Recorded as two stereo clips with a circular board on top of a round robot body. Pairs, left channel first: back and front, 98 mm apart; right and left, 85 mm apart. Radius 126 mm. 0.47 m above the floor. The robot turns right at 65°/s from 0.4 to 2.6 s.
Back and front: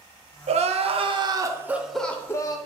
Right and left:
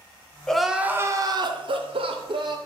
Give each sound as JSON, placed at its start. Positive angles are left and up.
{"t": 0.5, "sound": "crying", "azimuth_deg": -5, "distance_m": 0.7}